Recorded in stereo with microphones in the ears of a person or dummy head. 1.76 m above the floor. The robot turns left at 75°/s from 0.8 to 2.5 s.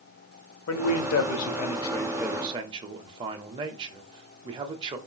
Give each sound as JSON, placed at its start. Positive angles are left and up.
{"t": 0.7, "sound": "a man speaking", "azimuth_deg": 100, "distance_m": 0.7}